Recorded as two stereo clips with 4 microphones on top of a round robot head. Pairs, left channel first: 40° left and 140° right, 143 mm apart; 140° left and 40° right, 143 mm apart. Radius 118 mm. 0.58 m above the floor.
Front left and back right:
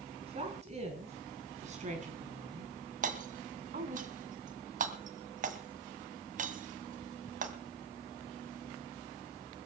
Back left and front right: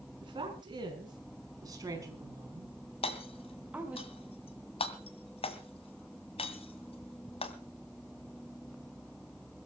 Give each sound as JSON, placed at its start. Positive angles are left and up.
{"t": 0.2, "sound": "a woman speaking", "azimuth_deg": -95, "distance_m": 6.0}
{"t": 3.0, "sound": "hammering", "azimuth_deg": -170, "distance_m": 1.9}